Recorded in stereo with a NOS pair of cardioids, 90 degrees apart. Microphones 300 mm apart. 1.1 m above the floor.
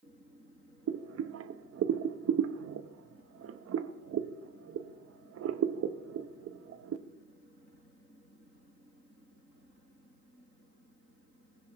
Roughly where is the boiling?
Ahead right.